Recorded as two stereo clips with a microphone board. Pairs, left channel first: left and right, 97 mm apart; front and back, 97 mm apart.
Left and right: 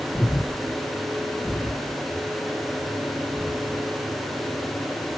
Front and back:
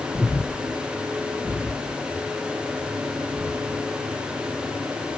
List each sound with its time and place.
0.1 s breathing: 165° right, 1.4 m